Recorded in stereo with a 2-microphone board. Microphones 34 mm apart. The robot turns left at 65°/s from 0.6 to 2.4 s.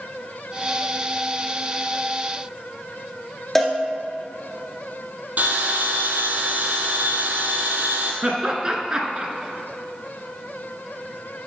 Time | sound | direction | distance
3.5 | a cowbell | 10° left (ahead or behind) | 1.2 m
5.4 | a bell | 55° right (ahead or behind) | 1.3 m
8.2 | laughter | 20° right (ahead or behind) | 1.1 m